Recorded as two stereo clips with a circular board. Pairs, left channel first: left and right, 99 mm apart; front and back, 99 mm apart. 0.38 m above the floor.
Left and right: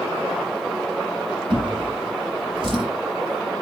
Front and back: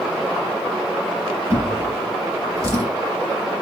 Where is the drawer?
125° right, 1.9 m.